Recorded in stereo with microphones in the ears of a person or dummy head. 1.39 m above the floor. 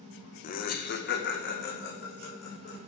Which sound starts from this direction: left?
Laughter, at 0.4 s.